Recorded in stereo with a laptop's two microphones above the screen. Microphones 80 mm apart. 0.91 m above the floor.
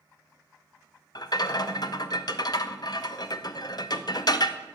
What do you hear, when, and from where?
1.1 s a rattle: 60° left (ahead or behind), 0.5 m